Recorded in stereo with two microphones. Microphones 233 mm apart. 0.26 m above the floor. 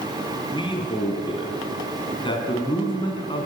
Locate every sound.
0.5 s a man speaking: 20° left (ahead or behind), 3 m